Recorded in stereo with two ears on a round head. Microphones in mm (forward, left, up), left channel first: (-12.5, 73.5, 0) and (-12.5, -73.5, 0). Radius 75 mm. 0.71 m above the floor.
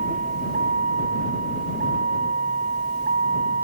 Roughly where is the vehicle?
Right.